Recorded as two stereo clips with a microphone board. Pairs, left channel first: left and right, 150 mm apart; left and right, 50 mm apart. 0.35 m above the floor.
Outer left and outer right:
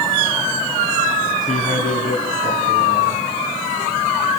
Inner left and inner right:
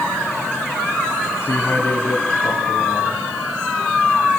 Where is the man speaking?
60° left (ahead or behind), 3 m.